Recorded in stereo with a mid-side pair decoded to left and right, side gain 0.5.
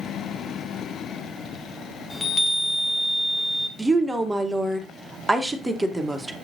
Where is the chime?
15° left, 0.9 m.